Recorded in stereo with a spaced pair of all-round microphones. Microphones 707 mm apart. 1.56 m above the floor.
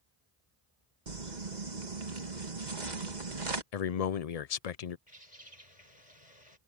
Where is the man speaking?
60° left (ahead or behind).